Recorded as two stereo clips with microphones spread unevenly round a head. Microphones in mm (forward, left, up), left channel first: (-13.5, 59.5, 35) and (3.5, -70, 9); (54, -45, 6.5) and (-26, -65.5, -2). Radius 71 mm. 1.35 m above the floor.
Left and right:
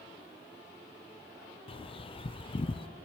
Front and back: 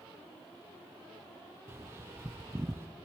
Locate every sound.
1.7 s a bird: 150° left, 0.5 m